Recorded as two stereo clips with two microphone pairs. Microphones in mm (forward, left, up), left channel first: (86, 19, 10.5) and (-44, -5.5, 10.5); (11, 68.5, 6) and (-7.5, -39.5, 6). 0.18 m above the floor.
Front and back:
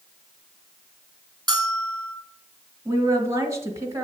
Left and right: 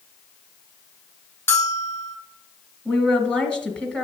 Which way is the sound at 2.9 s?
150° left.